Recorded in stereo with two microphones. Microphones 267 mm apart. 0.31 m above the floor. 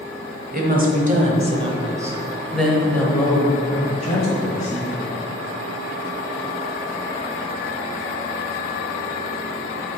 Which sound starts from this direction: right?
A woman speaking, at 0.5 s.